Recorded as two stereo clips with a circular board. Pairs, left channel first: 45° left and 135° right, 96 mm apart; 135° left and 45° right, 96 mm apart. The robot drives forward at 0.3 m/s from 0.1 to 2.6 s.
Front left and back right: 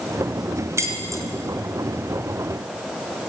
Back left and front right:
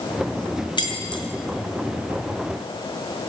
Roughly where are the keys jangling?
Behind.